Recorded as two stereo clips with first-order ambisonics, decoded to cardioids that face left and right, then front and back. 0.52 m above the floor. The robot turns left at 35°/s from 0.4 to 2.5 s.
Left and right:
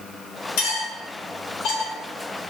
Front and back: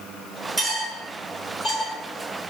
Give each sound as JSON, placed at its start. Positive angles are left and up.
{"t": 0.6, "sound": "cutlery clinking", "azimuth_deg": 100, "distance_m": 1.5}